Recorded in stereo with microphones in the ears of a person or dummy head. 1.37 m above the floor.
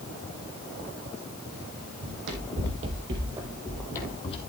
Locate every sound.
2.0 s running footsteps: 60° right (ahead or behind), 2.5 m; by 4.4 s 35° left (ahead or behind), 1.9 m